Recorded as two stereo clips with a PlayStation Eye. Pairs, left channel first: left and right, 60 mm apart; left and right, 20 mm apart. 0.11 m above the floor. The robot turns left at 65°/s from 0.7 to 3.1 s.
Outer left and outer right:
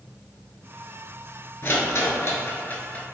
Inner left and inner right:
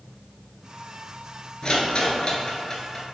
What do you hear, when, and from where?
1.6 s a rattle: 40° left (ahead or behind), 0.5 m; by 3.0 s 25° left (ahead or behind), 0.5 m